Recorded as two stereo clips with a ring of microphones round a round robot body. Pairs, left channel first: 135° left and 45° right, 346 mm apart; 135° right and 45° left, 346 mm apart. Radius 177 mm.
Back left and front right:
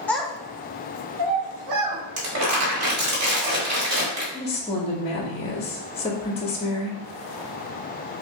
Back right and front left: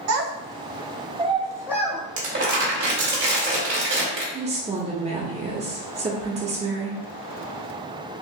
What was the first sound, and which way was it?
A child speaking, 50° left.